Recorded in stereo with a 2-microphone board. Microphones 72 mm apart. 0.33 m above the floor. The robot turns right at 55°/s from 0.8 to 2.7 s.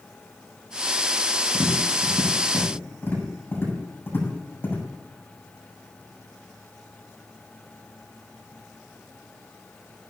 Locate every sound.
1.5 s tapping: 85° left, 8 m; by 4.8 s 30° left (ahead or behind), 8 m